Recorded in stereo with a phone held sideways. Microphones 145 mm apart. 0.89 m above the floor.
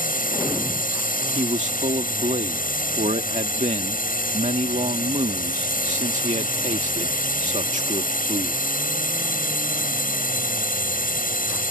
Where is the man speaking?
55° right (ahead or behind).